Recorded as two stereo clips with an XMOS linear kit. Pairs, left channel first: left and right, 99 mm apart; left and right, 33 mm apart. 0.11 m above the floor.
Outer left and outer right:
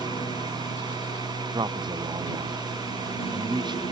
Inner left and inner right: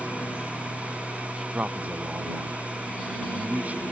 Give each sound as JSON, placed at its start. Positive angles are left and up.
{"t": 0.0, "sound": "a lawn mower", "side_deg": 70}
{"t": 1.5, "sound": "a man speaking", "side_deg": -50}